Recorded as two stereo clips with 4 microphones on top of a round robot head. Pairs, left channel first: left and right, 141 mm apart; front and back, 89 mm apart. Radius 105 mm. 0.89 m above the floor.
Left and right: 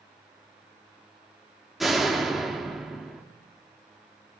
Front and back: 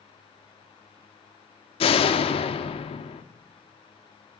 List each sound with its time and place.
1.8 s a door slam: straight ahead, 1.2 m